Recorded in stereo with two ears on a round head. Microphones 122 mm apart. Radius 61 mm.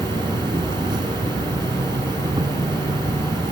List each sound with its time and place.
0.0 s an insect: 35° right (ahead or behind)